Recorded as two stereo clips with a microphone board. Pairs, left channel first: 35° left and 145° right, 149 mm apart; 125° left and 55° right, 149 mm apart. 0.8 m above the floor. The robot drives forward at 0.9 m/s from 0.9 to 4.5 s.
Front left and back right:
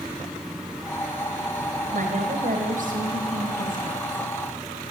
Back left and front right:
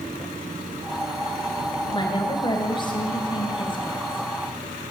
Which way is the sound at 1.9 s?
175° right.